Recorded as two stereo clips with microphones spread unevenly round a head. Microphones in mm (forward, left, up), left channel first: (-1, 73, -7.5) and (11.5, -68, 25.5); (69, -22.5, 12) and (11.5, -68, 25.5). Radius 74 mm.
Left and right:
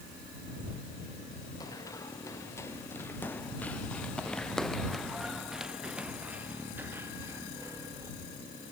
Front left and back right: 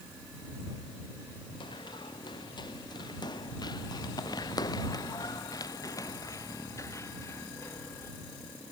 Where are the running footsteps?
25° left; by 8.1 s 15° right.